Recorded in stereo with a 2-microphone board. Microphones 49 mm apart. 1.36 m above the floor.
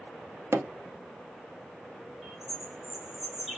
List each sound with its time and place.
0.5 s hammering: 65° right (ahead or behind), 0.5 m
2.2 s a bird: 10° right (ahead or behind), 2 m